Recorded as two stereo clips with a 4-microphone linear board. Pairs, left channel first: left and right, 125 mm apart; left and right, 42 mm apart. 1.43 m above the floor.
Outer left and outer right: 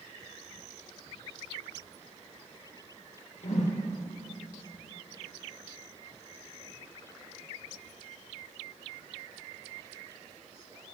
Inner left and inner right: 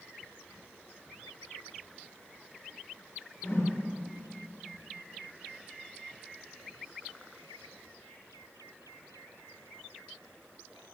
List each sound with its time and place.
3.4 s a whoosh: 65° left (ahead or behind), 1.4 m